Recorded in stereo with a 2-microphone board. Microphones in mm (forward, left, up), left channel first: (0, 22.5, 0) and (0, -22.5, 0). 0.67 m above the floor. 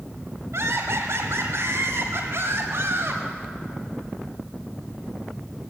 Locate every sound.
0.5 s laughter: 75° right (ahead or behind), 4.5 m; by 3.2 s 60° right (ahead or behind), 5.5 m